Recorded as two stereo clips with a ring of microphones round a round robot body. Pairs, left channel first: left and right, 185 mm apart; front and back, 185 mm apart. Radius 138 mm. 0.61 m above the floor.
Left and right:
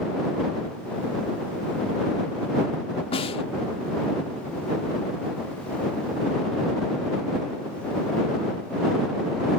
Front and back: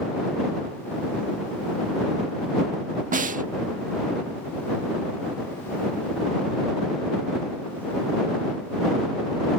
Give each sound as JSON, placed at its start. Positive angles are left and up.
{"t": 3.1, "sound": "a snare drum", "azimuth_deg": 145}